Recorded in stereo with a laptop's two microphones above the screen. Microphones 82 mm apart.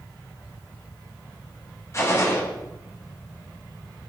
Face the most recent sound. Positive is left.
turn(degrees=35)  # may be behind; listen again after turning